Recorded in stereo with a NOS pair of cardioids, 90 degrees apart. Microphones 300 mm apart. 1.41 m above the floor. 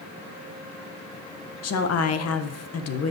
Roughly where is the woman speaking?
Ahead left.